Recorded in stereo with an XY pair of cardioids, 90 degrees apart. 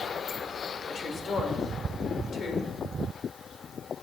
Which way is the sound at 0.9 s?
60° left.